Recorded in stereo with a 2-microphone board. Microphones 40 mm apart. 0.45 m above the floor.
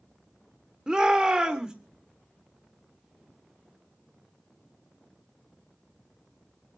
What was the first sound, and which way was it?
A shout, 20° right (ahead or behind).